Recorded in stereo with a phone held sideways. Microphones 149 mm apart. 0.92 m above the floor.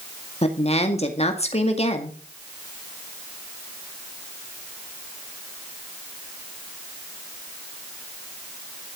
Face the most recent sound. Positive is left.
turn(degrees=45)  # may be behind; listen again after turning